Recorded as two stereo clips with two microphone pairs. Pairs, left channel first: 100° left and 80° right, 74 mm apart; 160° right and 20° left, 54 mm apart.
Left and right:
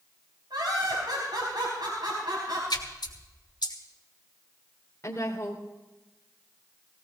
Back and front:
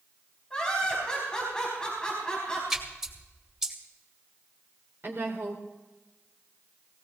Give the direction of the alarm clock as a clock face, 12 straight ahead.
No alarm clock in this recording.